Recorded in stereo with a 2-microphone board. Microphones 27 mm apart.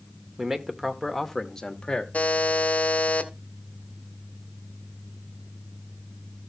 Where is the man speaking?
20° right (ahead or behind), 1.1 m; by 2.0 s 35° left (ahead or behind), 1.2 m.